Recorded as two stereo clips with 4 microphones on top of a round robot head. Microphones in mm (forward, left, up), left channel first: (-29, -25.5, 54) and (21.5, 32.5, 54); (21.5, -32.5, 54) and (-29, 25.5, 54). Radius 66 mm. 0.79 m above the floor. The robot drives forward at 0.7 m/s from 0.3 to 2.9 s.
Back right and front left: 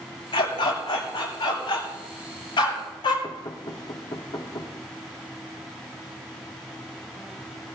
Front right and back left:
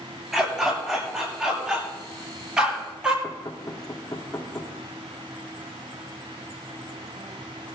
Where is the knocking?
105° right, 2 m.